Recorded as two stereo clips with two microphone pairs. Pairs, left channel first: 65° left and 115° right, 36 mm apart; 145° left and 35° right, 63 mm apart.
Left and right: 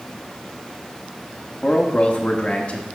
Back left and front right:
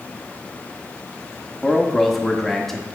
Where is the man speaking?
65° left, 0.8 m.